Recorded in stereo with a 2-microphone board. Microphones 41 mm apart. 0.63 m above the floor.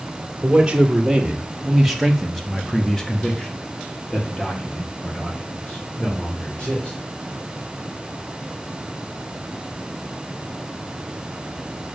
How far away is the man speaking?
About 1.9 m.